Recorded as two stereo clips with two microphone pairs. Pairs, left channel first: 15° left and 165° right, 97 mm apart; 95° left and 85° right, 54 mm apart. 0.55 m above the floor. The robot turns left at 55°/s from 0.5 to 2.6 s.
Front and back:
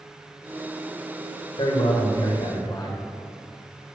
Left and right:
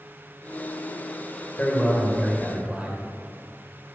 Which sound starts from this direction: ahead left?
A man speaking, at 1.6 s.